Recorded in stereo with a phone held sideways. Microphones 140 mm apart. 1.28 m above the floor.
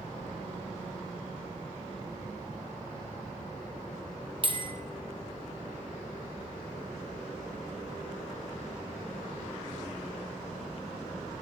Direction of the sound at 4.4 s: 35° right (ahead or behind).